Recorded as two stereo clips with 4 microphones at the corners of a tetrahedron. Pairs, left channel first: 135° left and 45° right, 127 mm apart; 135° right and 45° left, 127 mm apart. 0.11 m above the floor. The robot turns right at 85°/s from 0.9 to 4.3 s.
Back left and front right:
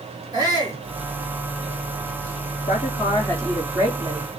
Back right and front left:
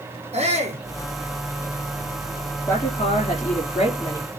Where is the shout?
10° left, 5.5 m.